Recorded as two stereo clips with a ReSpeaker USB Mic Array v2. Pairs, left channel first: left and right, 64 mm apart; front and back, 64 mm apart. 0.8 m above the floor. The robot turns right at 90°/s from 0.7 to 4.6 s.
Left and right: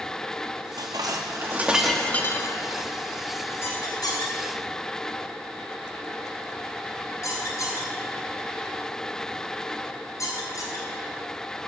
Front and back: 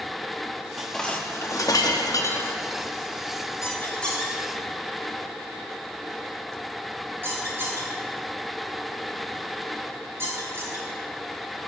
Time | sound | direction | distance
0.8 | dishes clattering | 100° right | 0.8 m
3.6 | a squeak | 40° left | 3 m